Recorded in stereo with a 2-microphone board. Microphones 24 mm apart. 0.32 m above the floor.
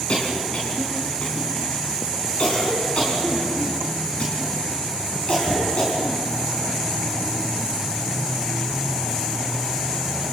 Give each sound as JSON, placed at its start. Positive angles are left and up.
{"t": 0.1, "sound": "a cough", "side_deg": 50, "distance_m": 4.0}